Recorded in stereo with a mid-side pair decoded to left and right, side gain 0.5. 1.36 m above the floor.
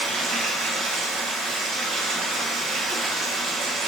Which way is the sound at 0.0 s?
70° right.